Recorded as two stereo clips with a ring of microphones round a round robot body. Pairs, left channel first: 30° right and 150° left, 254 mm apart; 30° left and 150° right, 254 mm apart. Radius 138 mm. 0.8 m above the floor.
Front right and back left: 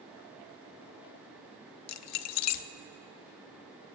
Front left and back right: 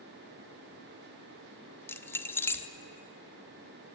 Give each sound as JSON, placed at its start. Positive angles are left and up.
{"t": 1.9, "sound": "keys jangling", "azimuth_deg": -50, "distance_m": 0.7}